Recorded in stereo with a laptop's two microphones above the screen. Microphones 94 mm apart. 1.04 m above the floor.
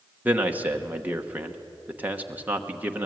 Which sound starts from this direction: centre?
A man speaking, at 0.2 s.